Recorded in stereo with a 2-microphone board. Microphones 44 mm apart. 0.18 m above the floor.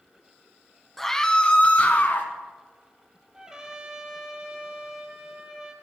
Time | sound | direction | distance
1.0 | a scream | 5° left (ahead or behind) | 1.1 m
3.3 | a trumpet | 15° right (ahead or behind) | 1.7 m